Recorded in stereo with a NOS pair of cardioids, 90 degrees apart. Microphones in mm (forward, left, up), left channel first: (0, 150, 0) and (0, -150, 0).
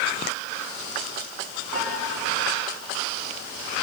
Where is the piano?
70° right, 8.5 m.